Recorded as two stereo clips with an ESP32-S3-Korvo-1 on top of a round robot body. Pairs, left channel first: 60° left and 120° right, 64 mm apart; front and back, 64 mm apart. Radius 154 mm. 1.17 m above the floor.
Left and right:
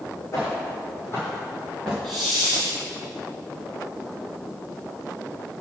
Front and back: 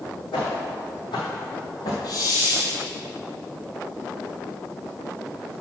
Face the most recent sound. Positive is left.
turn(degrees=-25)